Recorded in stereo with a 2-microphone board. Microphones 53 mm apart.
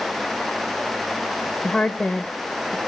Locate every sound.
1.6 s a woman speaking: 15° left (ahead or behind), 0.9 m